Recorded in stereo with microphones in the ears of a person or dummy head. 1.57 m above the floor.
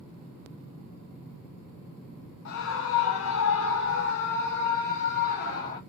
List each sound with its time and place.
2.5 s a scream: 65° left (ahead or behind), 1.0 m; by 5.8 s 40° left (ahead or behind), 1.8 m